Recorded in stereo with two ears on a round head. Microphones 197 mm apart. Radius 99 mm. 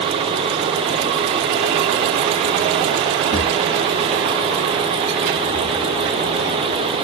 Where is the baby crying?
I don't hear a baby crying.